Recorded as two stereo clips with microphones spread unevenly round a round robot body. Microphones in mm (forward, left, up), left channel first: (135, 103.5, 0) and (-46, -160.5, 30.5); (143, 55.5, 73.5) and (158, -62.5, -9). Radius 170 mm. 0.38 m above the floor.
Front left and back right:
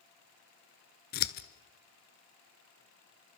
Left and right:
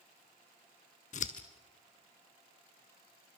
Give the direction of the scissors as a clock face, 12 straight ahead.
8 o'clock.